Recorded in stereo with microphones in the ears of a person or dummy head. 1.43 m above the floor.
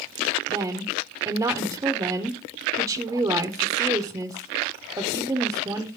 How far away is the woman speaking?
About 0.7 m.